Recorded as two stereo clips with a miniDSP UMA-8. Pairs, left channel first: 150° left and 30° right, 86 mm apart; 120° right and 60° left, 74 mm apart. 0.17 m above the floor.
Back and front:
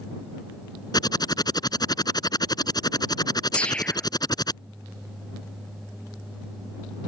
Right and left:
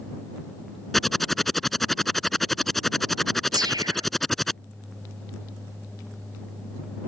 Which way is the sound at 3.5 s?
75° left.